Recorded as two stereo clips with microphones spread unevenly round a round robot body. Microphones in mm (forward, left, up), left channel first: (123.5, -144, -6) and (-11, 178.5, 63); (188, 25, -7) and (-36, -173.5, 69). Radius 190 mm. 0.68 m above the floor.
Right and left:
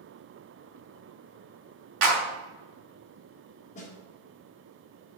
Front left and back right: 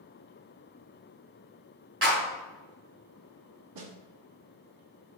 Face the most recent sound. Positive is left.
turn(degrees=-130)